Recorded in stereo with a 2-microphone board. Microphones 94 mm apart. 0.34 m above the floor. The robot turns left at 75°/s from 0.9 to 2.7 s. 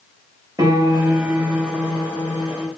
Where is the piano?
135° right, 1.0 m; by 2.7 s 90° left, 1.0 m.